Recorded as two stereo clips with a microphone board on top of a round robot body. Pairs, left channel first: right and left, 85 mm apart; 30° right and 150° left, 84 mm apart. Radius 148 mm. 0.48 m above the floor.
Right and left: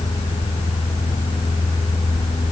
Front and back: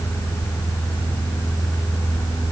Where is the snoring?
I don't hear snoring.